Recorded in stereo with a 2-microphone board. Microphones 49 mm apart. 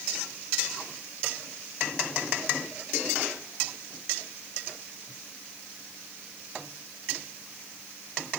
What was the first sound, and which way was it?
Only background noise.